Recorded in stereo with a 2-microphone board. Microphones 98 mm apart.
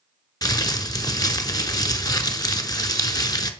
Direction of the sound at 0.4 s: 40° left (ahead or behind).